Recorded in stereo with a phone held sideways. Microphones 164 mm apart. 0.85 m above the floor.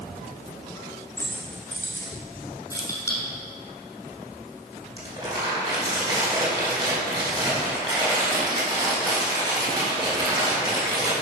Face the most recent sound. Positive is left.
turn(degrees=-25)  # may be behind; listen again after turning